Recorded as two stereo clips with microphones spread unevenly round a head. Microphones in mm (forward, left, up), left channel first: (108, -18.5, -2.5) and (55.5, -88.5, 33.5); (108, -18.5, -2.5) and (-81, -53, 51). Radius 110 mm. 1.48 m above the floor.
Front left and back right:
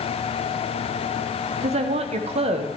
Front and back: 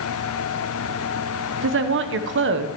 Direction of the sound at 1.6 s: 145° right.